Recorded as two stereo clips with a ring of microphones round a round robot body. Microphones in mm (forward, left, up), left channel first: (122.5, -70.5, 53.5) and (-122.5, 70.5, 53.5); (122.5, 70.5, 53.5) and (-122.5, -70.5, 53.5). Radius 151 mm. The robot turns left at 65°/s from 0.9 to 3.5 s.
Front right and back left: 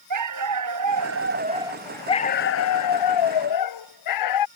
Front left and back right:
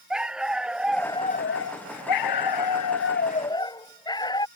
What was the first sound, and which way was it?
A dog barking, 125° left.